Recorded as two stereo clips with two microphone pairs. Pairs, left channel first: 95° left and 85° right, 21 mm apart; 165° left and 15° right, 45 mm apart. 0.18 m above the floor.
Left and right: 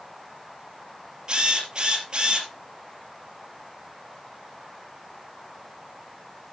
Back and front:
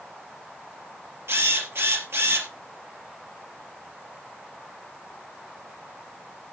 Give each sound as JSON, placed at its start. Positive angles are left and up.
{"t": 1.3, "sound": "a drill", "azimuth_deg": -35, "distance_m": 3.5}